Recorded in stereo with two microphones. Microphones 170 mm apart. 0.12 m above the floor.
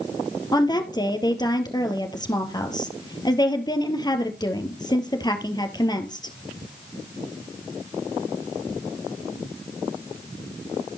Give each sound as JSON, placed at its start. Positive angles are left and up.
{"t": 0.5, "sound": "a woman speaking", "side_deg": 25, "distance_m": 2.0}